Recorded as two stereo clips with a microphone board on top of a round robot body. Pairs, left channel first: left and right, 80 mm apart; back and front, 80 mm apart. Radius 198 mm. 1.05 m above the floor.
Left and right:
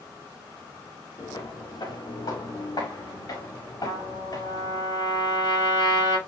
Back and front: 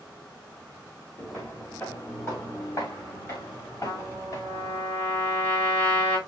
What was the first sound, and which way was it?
Footsteps, 115° left.